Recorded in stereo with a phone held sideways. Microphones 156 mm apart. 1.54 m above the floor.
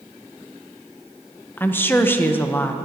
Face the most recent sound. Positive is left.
turn(degrees=15)  # may be behind; listen again after turning